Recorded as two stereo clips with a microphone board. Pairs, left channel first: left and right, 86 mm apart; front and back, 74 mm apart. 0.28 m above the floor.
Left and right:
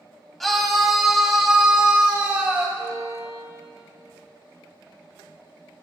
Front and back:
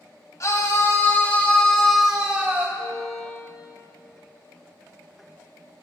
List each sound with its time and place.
0.4 s a scream: 5° left, 1.9 m; by 2.7 s 145° right, 1.5 m
2.8 s a violin: 40° right, 1.8 m